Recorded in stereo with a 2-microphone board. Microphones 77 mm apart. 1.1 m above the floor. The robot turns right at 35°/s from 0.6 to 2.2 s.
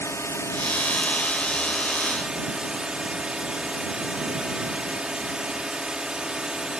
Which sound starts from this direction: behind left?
A drone, at 0.0 s.